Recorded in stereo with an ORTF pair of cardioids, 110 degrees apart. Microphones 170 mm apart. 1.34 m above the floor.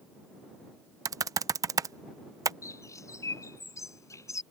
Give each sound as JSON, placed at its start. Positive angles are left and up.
{"t": 1.1, "sound": "typing on a keyboard", "azimuth_deg": -20}
{"t": 2.6, "sound": "a bird", "azimuth_deg": 15}